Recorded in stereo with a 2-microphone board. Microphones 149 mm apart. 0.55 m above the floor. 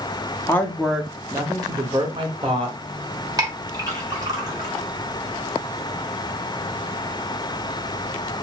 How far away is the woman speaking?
About 0.7 m.